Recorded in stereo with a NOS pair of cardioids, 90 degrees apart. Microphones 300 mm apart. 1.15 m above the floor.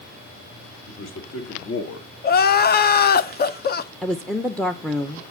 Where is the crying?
35° left, 0.6 m.